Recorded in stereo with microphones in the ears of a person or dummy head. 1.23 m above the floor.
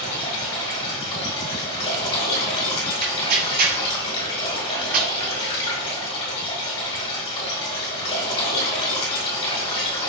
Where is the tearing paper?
45° right (ahead or behind), 0.8 m.